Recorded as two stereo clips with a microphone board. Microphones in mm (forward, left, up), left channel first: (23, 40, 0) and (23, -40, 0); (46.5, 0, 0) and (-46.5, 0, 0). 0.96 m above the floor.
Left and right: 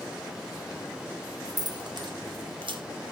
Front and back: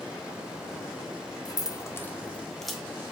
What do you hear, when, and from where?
1.4 s keys jangling: 45° right, 1.3 m; by 2.8 s 95° right, 1.5 m